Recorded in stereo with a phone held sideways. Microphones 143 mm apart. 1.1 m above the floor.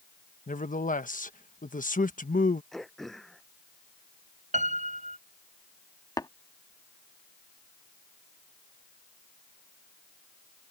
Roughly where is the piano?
Right.